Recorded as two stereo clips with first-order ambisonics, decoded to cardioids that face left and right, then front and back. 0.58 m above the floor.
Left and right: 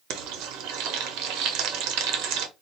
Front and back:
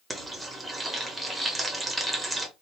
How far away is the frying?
About 0.8 m.